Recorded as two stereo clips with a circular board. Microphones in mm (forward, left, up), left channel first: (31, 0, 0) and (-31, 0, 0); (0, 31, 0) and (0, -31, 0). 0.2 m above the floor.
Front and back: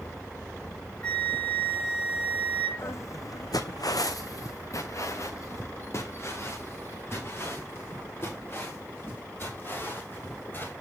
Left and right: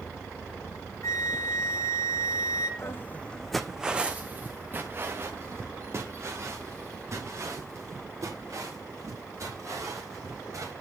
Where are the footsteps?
50° left, 0.5 m; by 10.7 s 55° right, 4 m.